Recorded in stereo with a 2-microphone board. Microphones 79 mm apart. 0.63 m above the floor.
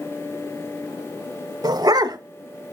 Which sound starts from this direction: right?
A dog barking, at 1.6 s.